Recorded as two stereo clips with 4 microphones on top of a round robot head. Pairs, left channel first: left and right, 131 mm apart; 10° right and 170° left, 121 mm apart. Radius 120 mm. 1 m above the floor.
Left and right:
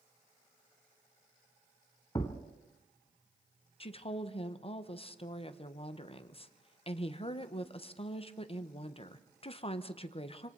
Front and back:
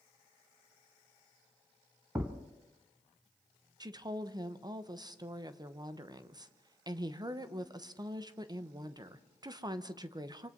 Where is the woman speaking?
120° left, 1.1 m.